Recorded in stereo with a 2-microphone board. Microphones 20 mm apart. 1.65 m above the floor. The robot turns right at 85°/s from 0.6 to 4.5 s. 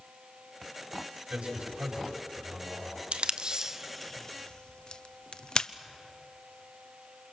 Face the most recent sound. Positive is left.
turn(degrees=50)  # may be behind; listen again after turning